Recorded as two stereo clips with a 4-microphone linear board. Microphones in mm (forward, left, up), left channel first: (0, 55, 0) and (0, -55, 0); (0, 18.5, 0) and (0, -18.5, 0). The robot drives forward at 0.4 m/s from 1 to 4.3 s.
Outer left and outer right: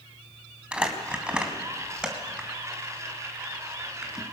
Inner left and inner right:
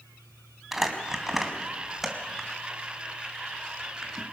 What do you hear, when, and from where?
0.7 s crumpling: 10° right (ahead or behind), 3 m; by 4.2 s 5° right (ahead or behind), 4 m